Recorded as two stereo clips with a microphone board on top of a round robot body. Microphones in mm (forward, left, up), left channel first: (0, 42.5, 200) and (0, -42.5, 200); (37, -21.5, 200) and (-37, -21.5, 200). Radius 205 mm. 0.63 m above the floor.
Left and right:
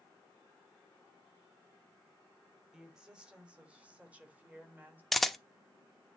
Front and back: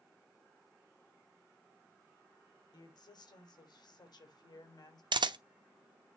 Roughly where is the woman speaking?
Ahead.